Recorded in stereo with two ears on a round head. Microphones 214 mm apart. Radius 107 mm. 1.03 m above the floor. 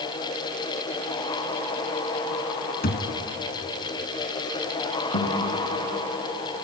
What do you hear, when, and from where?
2.8 s a thud: 40° left (ahead or behind), 1.9 m
5.1 s a guitar: 55° left (ahead or behind), 5.5 m